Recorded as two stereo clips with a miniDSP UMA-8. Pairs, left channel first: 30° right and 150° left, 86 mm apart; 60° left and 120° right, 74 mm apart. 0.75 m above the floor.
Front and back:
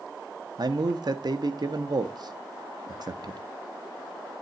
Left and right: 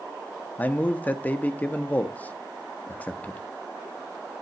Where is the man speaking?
125° left, 0.9 m.